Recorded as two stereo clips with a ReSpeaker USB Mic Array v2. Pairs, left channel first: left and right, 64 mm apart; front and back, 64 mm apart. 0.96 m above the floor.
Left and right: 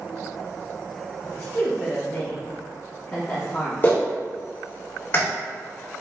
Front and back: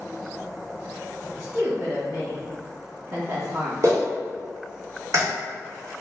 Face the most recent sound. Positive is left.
turn(degrees=145)